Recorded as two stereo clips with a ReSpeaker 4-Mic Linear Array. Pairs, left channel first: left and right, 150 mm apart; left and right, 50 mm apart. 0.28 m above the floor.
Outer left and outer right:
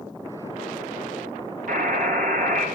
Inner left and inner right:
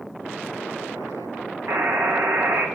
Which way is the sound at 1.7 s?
70° right (ahead or behind).